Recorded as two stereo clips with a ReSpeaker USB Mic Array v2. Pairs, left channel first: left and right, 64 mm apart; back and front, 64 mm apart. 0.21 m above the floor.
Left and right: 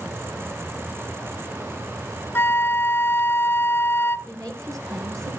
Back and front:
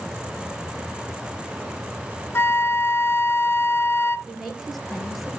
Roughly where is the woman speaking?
Right.